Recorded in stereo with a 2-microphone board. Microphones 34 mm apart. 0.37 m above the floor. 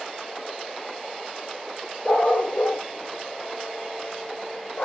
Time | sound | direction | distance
2.0 | a dog barking | 35° left (ahead or behind) | 3.5 m